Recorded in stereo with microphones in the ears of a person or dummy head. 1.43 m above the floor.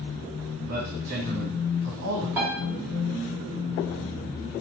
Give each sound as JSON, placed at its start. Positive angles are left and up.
{"t": 0.7, "sound": "a man speaking", "side_deg": -55, "distance_m": 1.4}
{"t": 2.4, "sound": "a piano", "side_deg": -10, "distance_m": 2.0}